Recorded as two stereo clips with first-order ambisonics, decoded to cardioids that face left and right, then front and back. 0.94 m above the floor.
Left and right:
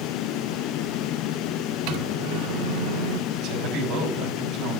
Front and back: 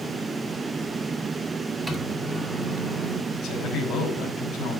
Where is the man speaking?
55° right, 5.5 m.